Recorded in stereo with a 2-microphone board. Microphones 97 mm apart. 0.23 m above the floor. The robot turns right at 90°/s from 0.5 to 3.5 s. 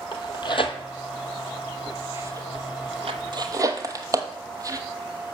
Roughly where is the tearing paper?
Left.